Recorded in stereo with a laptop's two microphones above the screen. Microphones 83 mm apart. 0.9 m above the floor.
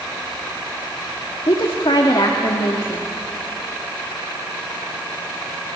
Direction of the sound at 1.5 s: 80° left.